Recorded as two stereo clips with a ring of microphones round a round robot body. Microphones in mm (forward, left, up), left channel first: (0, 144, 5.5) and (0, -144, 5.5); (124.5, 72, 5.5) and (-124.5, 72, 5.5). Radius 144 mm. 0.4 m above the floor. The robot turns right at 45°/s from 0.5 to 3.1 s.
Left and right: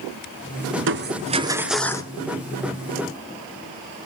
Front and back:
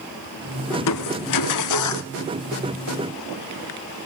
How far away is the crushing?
About 1.3 m.